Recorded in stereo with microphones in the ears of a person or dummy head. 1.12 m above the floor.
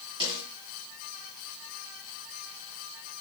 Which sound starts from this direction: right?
A snare drum, at 0.2 s.